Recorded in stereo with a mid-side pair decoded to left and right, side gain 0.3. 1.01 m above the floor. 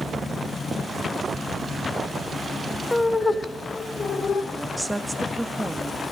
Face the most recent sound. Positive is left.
turn(degrees=-10)